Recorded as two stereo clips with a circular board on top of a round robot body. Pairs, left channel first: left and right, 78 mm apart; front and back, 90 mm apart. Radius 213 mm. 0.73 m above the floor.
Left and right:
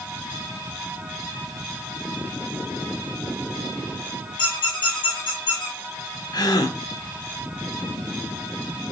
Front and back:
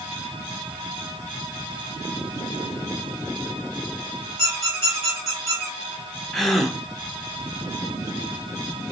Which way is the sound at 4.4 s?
90° left.